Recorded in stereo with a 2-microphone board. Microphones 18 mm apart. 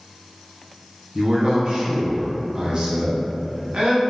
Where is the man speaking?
45° right (ahead or behind), 0.9 m.